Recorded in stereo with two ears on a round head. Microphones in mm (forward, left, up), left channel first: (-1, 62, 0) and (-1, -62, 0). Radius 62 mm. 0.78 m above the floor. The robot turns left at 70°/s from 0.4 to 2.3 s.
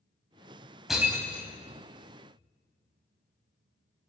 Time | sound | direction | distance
0.9 | breaking glass | centre (ahead or behind) | 2 m